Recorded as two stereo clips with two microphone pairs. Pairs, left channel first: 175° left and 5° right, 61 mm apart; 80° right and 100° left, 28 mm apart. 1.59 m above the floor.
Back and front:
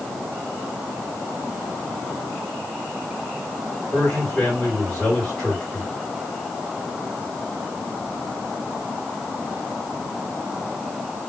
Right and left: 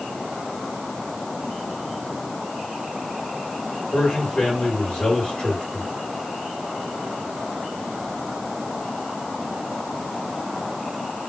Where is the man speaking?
110° right, 2.5 m.